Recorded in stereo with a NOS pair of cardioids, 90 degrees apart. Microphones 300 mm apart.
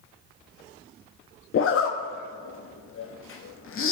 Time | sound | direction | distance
1.5 | a zipper | 45° left | 0.8 m